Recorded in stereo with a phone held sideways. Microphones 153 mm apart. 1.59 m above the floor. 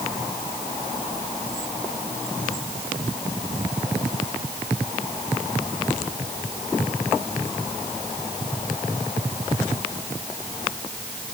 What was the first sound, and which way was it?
Only background noise.